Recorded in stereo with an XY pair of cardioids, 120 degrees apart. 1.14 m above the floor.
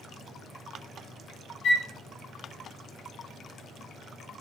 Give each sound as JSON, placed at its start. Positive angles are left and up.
{"t": 1.6, "sound": "a flute", "azimuth_deg": 70, "distance_m": 2.0}